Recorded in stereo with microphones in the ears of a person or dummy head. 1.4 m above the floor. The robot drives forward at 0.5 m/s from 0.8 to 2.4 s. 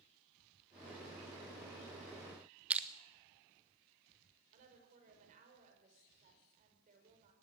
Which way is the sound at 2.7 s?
5° right (ahead or behind).